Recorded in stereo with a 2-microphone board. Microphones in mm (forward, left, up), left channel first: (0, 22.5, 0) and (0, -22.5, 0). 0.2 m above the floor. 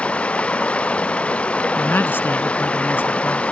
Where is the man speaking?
55° left (ahead or behind).